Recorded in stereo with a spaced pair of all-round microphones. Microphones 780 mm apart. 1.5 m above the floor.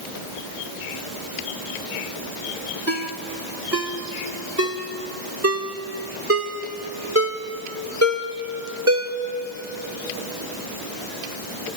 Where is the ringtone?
20° right (ahead or behind), 1.6 m.